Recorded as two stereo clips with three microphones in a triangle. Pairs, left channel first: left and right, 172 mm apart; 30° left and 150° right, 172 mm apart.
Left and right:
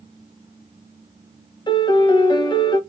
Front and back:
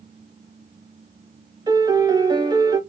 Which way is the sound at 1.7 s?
150° left.